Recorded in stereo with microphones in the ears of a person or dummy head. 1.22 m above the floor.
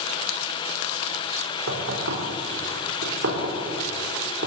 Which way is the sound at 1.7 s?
90° right.